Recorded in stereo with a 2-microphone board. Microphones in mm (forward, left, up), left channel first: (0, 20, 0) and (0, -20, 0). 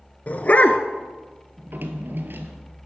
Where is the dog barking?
40° left (ahead or behind), 0.7 m.